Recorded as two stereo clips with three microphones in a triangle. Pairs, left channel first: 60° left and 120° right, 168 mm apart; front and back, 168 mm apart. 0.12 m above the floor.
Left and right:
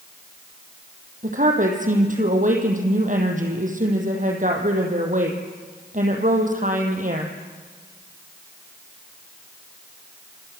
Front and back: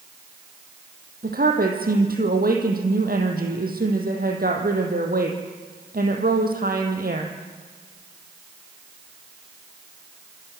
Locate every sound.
1.2 s a woman speaking: 155° right, 5 m